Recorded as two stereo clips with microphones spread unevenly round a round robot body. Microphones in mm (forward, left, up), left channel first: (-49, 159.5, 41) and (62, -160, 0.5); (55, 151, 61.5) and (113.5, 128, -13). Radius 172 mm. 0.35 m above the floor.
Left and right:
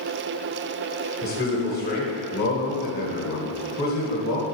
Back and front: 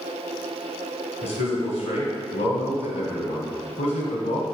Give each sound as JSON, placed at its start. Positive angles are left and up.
{"t": 1.2, "sound": "a man speaking", "azimuth_deg": 170, "distance_m": 1.7}